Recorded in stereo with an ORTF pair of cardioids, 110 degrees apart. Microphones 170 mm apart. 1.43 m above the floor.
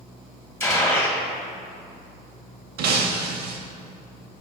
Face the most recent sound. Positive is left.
turn(degrees=-70)